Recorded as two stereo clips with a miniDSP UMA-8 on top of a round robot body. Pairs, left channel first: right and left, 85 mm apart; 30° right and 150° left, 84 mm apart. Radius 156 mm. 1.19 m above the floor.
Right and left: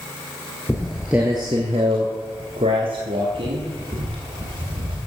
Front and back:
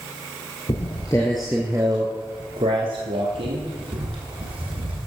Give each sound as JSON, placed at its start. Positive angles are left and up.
{"t": 0.7, "sound": "footsteps", "azimuth_deg": -20, "distance_m": 1.3}